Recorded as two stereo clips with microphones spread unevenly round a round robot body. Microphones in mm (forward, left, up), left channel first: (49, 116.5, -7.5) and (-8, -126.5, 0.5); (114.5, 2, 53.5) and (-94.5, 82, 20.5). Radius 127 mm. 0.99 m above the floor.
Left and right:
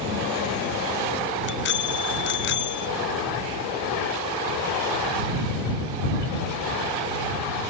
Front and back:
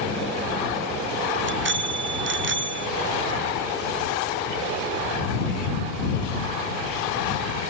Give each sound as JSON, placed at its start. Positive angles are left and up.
{"t": 1.4, "sound": "a bicycle bell", "azimuth_deg": 125}